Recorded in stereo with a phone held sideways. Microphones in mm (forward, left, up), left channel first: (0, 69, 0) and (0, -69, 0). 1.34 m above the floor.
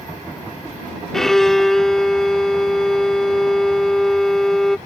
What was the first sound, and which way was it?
A violin, 5° left (ahead or behind).